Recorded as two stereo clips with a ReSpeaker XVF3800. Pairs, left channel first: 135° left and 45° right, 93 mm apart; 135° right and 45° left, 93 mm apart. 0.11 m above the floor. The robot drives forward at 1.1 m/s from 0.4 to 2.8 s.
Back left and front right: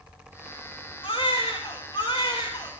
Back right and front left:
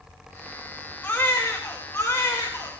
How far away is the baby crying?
About 3 m.